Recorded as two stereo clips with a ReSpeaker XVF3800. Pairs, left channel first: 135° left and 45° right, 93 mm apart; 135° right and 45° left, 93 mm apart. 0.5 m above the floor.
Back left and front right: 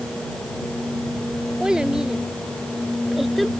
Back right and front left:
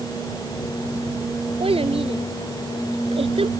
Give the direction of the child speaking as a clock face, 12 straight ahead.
11 o'clock.